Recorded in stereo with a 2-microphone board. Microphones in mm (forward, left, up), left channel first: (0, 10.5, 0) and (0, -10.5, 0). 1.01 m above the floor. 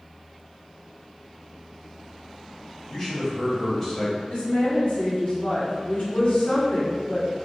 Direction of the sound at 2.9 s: 10° left (ahead or behind).